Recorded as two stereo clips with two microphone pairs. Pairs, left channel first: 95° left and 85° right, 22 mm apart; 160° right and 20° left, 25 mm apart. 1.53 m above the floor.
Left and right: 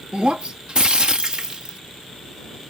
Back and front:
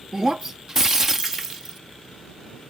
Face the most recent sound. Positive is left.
turn(degrees=-55)